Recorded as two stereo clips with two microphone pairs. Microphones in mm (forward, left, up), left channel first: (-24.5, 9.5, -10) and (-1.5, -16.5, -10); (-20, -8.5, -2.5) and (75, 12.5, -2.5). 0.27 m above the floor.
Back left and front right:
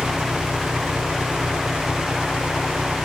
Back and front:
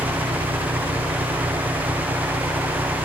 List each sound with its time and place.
0.0 s an engine running: 10° right